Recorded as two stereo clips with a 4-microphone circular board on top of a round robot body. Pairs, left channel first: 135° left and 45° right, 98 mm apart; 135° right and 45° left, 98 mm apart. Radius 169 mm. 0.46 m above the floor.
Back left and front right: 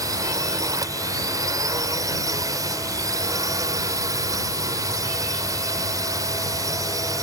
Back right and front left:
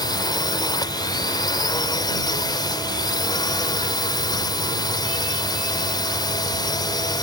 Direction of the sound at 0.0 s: 95° right.